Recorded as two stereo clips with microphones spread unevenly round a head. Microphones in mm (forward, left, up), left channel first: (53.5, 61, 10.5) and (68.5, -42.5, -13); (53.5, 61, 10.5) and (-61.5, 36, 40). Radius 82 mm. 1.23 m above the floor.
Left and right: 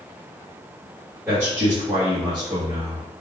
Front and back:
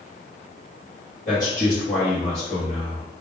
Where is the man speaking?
15° right, 1.7 m; by 3.2 s 35° right, 2.5 m.